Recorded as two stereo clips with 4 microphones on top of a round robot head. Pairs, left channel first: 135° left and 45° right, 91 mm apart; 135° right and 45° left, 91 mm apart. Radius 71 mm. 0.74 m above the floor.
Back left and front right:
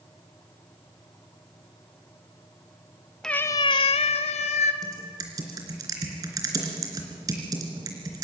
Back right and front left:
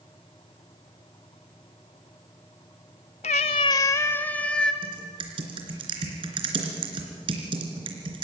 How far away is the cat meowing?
About 0.6 m.